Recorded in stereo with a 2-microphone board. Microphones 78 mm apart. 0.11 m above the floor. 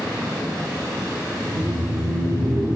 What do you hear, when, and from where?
1.4 s laughter: 50° right (ahead or behind), 2 m